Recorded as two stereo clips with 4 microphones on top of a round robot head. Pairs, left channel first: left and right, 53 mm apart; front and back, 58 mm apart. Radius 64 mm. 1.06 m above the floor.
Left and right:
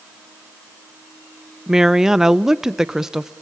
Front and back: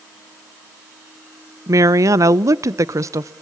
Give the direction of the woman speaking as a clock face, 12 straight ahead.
6 o'clock.